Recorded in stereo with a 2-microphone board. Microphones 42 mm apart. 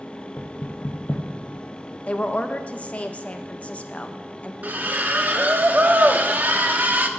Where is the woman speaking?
30° left (ahead or behind), 0.5 m.